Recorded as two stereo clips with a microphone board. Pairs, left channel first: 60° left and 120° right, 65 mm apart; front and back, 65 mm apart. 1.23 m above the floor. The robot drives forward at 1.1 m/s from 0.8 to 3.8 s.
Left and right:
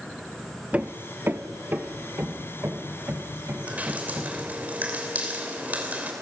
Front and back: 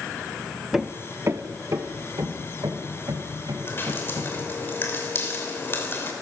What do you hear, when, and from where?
0.7 s hammering: 105° right, 0.7 m; by 4.4 s 175° right, 3.5 m
3.7 s dripping: 50° right, 3 m; by 6.1 s 55° right, 3 m